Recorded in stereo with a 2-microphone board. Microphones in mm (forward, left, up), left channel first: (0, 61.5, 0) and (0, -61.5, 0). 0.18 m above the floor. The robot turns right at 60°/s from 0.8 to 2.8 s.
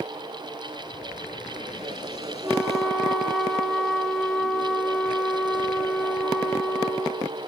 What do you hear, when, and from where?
2.4 s a flute: 5° right (ahead or behind), 1.5 m; by 7.4 s 5° left (ahead or behind), 1.5 m